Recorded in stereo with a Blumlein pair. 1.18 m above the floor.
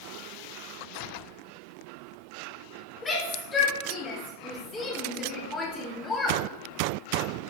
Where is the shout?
15° left, 5 m.